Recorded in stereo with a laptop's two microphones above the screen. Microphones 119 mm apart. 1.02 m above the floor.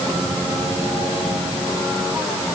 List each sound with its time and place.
Only background noise.